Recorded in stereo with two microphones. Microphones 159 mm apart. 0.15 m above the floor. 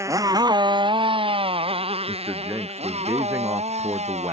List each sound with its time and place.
0.0 s a motorcycle: 20° right (ahead or behind); by 4.3 s 45° right (ahead or behind)
2.1 s a man speaking: 15° right (ahead or behind)